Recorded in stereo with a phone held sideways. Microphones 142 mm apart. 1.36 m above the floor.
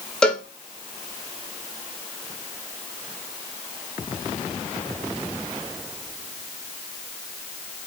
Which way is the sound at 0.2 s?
5° left (ahead or behind).